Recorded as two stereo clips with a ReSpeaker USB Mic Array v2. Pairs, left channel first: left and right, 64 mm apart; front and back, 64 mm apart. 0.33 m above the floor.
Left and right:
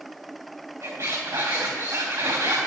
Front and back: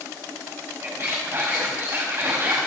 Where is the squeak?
125° right, 4 m.